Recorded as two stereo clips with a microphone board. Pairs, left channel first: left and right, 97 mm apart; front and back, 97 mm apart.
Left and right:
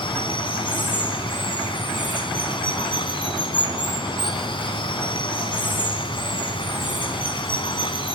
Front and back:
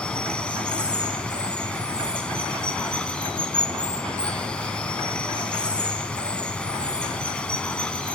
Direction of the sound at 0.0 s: 75° left.